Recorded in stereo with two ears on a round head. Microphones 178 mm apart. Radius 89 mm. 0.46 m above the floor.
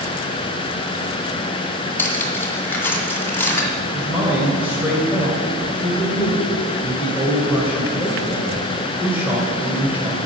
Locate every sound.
2.0 s cutlery clinking: 10° left (ahead or behind), 1.9 m
3.9 s a man speaking: 10° right (ahead or behind), 2.0 m